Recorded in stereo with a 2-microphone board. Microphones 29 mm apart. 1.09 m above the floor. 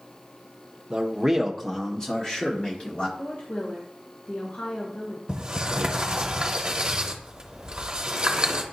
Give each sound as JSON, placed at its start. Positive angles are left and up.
{"t": 0.9, "sound": "a man speaking", "side_deg": -25, "distance_m": 0.7}
{"t": 3.2, "sound": "a woman speaking", "side_deg": 65, "distance_m": 1.6}
{"t": 5.3, "sound": "a sliding door", "side_deg": -30, "distance_m": 0.9}